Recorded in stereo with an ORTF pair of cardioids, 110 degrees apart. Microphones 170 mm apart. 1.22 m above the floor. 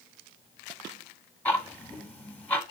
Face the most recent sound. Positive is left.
turn(degrees=10)